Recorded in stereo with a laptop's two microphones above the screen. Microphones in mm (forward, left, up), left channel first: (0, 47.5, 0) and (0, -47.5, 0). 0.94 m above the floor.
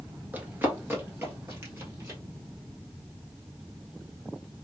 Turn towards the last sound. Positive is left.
turn(degrees=-25)  # may be behind; listen again after turning